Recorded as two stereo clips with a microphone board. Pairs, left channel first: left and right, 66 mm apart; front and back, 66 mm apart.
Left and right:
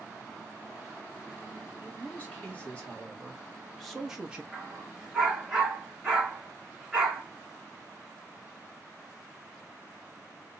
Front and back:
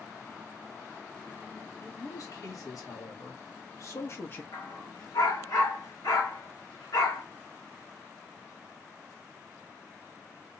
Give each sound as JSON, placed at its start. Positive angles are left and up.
{"t": 1.8, "sound": "a man speaking", "azimuth_deg": 30, "distance_m": 2.0}
{"t": 4.5, "sound": "a dog barking", "azimuth_deg": -5, "distance_m": 2.5}